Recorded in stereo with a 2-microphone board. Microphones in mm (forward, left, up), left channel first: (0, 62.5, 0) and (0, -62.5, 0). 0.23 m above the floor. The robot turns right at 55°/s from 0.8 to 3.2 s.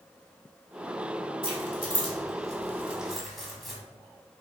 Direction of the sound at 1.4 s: 45° right (ahead or behind).